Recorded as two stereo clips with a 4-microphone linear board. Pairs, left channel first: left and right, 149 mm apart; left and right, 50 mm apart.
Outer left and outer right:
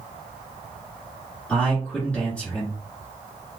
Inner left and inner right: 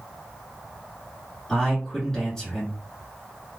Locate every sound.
1.5 s a man speaking: 10° left (ahead or behind), 1.6 m